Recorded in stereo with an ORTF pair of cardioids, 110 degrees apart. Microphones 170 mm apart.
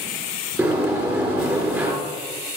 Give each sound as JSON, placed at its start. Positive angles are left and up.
{"t": 0.6, "sound": "a sliding door", "azimuth_deg": -15, "distance_m": 3.5}